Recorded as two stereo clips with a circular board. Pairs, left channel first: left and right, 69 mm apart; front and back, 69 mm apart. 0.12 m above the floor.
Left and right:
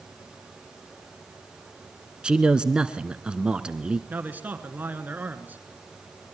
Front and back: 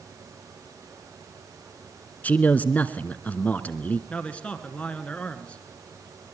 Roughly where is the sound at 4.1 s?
Ahead right.